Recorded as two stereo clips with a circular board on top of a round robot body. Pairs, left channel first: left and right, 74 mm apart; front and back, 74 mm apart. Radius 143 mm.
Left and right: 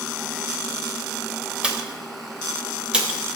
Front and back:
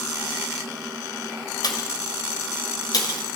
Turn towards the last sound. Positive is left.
turn(degrees=-15)